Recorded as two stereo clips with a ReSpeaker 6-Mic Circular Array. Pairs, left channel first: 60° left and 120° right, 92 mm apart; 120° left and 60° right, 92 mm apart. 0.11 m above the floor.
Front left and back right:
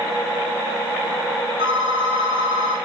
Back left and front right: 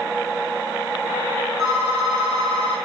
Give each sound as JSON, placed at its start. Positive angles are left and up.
{"t": 1.6, "sound": "a phone ringing", "azimuth_deg": -120, "distance_m": 5.0}